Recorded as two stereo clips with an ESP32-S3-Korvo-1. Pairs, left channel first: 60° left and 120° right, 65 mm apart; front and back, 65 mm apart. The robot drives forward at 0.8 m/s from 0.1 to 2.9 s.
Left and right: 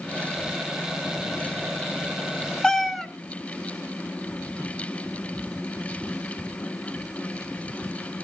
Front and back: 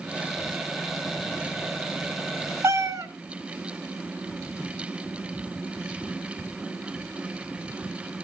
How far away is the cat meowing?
About 0.6 m.